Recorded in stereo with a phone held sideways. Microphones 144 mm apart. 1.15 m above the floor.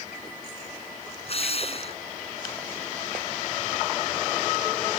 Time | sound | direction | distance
1.2 | a drill | 45° left (ahead or behind) | ?